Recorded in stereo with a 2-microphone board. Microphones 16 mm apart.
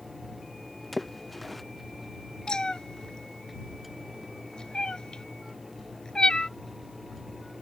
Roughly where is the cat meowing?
Left.